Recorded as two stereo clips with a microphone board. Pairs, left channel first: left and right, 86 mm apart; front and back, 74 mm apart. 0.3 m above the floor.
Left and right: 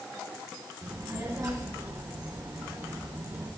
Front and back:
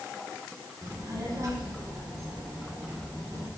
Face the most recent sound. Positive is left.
turn(degrees=-135)